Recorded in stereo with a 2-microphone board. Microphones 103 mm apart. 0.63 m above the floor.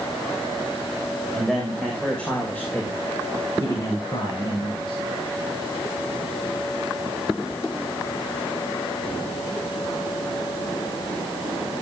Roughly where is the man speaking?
Centre.